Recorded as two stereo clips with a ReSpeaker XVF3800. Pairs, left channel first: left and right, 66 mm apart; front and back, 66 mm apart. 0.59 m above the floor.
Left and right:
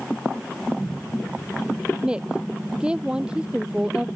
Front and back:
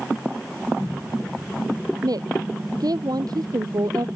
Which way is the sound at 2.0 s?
165° right.